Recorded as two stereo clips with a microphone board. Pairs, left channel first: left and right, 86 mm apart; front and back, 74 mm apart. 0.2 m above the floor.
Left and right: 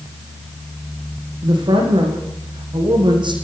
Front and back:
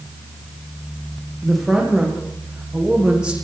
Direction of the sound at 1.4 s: 90° right.